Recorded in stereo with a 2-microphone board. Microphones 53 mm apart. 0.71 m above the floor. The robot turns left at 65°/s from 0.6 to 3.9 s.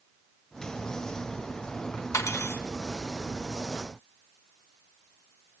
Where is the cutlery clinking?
70° left (ahead or behind), 1.5 m; by 2.6 s 40° left (ahead or behind), 1.5 m.